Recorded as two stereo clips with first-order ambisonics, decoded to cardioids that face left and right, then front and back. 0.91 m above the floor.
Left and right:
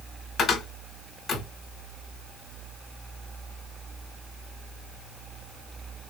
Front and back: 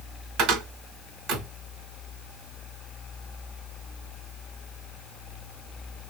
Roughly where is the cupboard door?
Behind left.